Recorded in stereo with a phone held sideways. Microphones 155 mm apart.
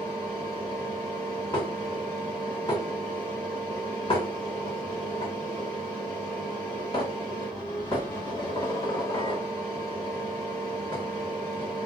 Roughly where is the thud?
I don't hear a thud.